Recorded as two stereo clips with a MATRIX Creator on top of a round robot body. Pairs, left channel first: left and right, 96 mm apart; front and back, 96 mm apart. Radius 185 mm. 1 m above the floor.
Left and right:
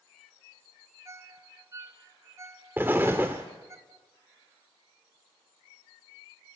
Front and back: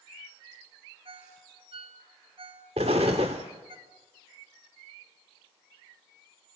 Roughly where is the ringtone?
Behind right.